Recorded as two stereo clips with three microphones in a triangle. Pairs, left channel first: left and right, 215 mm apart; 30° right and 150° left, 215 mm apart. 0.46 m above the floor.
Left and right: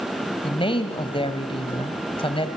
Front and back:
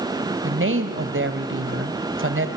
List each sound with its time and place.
0.4 s a woman speaking: 155° left, 2.0 m